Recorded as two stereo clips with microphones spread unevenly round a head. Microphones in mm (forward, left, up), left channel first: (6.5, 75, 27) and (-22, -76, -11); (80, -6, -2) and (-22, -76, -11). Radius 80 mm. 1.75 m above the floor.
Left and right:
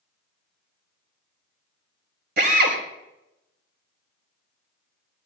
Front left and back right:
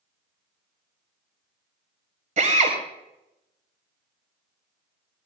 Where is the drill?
130° right, 5.5 m.